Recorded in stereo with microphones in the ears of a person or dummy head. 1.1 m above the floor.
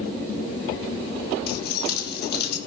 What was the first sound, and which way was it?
Keys jangling, 60° left (ahead or behind).